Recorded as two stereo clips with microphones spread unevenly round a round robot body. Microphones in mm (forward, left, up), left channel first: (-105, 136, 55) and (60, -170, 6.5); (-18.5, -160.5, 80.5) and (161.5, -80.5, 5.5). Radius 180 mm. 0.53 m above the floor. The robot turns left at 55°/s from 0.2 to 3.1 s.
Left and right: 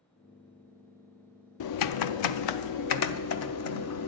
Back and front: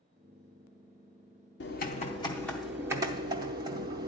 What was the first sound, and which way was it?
Typing on a keyboard, 155° left.